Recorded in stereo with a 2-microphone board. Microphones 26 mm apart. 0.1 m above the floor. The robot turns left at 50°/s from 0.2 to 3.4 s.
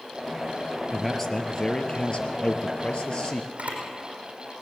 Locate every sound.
0.9 s a man speaking: 175° left, 1.7 m; by 3.5 s 50° left, 1.7 m
3.6 s a camera shutter: 75° right (ahead or behind), 5.5 m